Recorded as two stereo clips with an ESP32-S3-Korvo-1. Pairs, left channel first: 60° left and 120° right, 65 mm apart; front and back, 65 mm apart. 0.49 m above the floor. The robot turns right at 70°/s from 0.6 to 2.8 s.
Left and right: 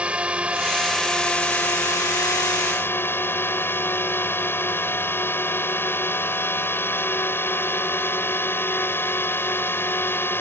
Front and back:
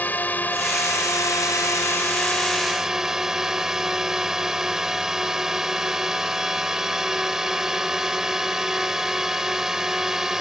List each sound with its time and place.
0.0 s a drone: 55° right; by 10.4 s 100° left